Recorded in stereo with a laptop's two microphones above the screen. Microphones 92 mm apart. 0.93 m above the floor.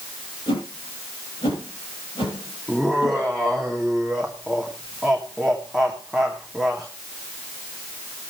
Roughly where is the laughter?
Centre.